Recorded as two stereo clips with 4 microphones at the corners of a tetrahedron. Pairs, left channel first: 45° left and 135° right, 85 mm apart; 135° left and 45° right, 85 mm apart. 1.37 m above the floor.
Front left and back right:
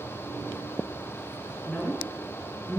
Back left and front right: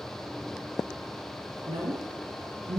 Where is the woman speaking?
35° right, 0.5 m.